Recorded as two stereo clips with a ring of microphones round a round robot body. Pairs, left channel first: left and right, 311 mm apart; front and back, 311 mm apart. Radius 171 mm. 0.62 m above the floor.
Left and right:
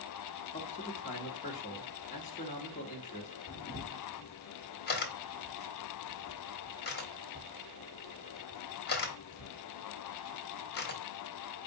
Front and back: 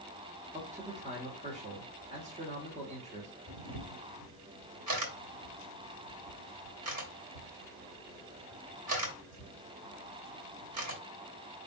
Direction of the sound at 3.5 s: 145° left.